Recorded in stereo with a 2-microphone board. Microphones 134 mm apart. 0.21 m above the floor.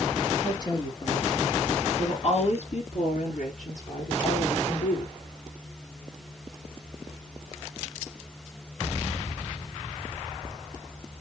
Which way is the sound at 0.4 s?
30° left (ahead or behind).